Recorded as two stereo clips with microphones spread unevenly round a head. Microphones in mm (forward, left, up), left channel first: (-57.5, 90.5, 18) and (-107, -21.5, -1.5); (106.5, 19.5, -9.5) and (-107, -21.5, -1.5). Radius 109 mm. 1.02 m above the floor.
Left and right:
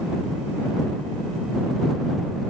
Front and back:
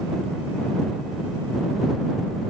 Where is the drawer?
I don't hear a drawer.